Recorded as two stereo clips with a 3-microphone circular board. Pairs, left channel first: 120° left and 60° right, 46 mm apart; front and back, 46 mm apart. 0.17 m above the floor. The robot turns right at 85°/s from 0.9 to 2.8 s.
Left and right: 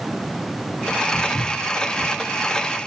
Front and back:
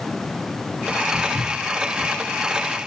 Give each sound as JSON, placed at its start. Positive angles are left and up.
{"t": 1.1, "sound": "footsteps", "azimuth_deg": 100, "distance_m": 3.0}